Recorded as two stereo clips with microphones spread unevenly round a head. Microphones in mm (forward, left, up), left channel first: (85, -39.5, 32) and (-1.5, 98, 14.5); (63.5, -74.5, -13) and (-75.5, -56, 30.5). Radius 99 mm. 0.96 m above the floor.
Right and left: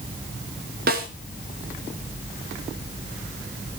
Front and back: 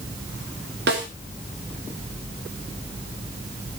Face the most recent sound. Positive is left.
turn(degrees=150)